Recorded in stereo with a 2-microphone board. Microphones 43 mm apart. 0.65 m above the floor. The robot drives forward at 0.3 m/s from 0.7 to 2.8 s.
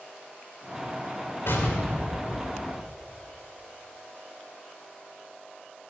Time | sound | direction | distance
1.5 | an explosion | 65° left (ahead or behind) | 2.5 m